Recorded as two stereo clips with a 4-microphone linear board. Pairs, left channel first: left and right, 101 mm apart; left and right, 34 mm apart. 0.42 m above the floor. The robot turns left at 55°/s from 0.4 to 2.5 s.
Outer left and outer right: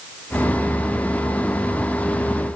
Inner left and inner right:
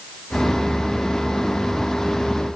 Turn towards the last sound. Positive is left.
No sound to turn to.